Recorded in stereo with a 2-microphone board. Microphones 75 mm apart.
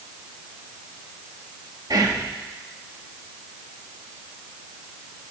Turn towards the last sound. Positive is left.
turn(degrees=-60)  # may be behind; listen again after turning